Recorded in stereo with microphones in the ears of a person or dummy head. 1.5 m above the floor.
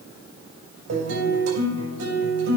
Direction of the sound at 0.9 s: 80° right.